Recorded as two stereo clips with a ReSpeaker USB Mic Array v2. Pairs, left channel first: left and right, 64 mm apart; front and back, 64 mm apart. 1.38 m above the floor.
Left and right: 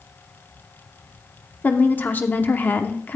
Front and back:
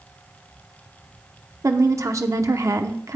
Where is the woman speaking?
150° left, 0.8 m.